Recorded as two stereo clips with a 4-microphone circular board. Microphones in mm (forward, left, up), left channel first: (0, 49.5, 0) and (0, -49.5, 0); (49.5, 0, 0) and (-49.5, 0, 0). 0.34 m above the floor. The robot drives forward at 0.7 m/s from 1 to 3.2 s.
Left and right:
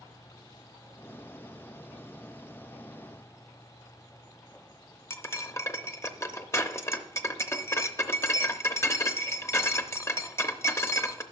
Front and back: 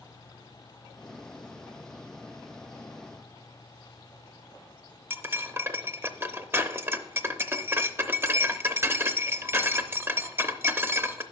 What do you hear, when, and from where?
5.1 s cutlery clinking: 130° left, 0.6 m